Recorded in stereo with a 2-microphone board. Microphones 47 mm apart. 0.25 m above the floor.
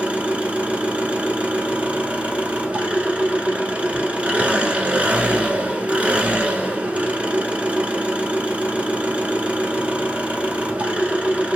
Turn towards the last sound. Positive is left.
turn(degrees=-25)  # may be behind; listen again after turning